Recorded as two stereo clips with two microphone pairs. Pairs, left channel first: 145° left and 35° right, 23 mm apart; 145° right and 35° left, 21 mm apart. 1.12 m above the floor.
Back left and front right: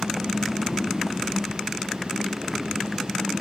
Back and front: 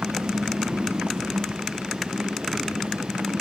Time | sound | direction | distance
0.0 | a motorcycle | 50° left | ?